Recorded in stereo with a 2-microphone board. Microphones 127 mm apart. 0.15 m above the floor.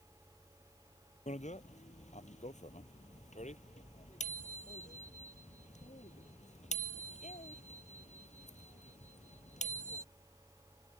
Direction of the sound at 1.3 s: 70° left (ahead or behind).